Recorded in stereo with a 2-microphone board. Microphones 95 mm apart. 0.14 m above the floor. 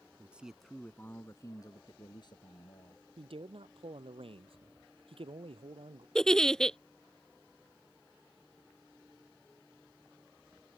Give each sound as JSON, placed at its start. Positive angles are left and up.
{"t": 0.2, "sound": "a man speaking", "side_deg": -15}
{"t": 3.2, "sound": "a man speaking", "side_deg": -70}
{"t": 6.2, "sound": "a giggle", "side_deg": 5}